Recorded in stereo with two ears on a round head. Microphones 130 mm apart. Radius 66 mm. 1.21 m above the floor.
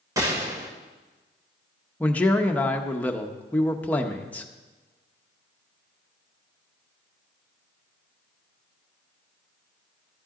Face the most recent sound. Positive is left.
turn(degrees=10)  # may be behind; listen again after turning